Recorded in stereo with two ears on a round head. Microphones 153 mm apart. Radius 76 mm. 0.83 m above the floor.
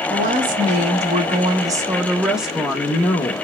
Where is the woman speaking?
55° right (ahead or behind), 1.5 m; by 3.3 s 20° left (ahead or behind), 1.1 m.